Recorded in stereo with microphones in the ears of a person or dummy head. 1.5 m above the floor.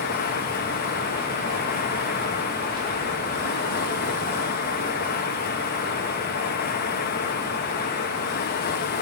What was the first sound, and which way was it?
Running water, 50° left (ahead or behind).